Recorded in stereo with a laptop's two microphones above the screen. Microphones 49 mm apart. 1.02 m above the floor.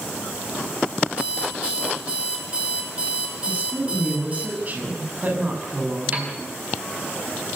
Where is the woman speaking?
35° right (ahead or behind), 8.5 m.